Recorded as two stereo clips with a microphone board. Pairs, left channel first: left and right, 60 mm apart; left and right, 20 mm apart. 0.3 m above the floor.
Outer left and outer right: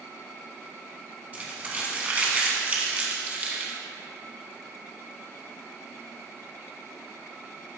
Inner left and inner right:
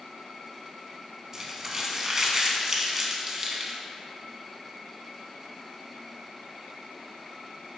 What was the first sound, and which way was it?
Crumpling, 25° right (ahead or behind).